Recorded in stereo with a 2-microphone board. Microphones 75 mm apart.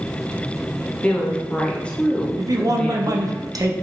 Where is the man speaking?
50° right (ahead or behind), 0.6 m.